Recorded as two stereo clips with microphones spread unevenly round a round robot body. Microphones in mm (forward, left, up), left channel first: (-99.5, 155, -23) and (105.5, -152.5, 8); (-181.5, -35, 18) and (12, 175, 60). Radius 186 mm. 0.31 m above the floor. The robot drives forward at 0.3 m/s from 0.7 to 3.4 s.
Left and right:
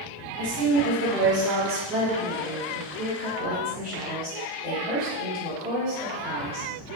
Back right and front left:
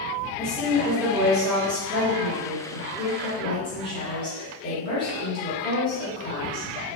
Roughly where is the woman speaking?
Ahead right.